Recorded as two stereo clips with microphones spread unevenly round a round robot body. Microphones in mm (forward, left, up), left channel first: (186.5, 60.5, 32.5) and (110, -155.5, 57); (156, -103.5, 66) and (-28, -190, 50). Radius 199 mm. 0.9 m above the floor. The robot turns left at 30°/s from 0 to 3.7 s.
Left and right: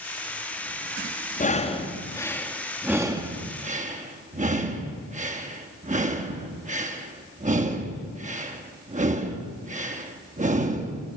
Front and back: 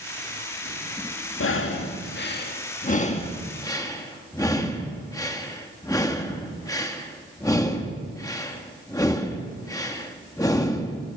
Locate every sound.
1.4 s breathing: 20° left, 2.5 m; by 11.1 s 50° right, 2.5 m